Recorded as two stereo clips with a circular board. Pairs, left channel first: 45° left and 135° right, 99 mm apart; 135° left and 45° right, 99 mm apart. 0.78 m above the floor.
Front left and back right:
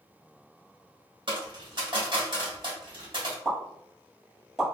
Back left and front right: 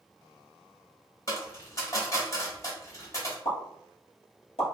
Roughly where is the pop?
Behind left.